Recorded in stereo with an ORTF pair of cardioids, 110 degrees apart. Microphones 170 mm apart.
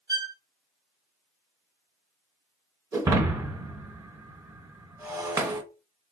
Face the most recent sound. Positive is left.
turn(degrees=-15)